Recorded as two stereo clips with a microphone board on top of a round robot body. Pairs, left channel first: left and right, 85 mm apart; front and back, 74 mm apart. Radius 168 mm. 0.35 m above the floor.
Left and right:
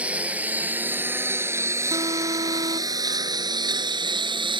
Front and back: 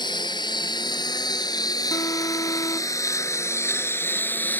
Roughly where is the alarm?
Ahead right.